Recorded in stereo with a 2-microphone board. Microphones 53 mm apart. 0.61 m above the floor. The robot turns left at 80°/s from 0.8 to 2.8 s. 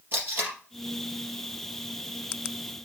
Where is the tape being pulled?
40° right (ahead or behind), 3.5 m.